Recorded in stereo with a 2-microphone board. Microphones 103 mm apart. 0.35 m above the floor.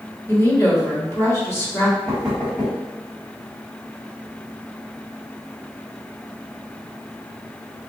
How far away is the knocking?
About 1.9 m.